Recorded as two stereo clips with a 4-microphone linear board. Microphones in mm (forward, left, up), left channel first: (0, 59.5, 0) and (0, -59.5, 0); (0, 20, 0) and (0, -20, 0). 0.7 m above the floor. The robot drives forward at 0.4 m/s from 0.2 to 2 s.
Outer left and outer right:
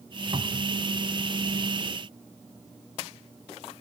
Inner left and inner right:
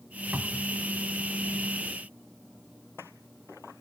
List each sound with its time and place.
0.3 s a cupboard door: 50° right (ahead or behind)